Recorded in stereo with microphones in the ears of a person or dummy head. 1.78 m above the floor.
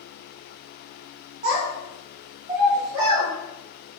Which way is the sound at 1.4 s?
25° right (ahead or behind).